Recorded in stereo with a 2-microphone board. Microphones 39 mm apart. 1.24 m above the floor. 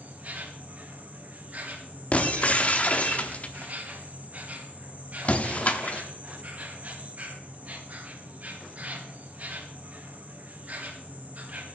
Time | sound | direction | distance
0.0 | an insect | 40° right (ahead or behind) | 1.8 m
2.1 | breaking glass | 35° left (ahead or behind) | 1.0 m